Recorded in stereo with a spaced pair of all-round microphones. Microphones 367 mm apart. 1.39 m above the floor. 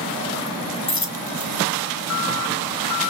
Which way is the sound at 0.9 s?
50° left (ahead or behind).